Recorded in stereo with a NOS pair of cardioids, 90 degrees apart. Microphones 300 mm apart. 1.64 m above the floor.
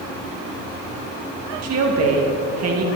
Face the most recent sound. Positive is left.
turn(degrees=-60)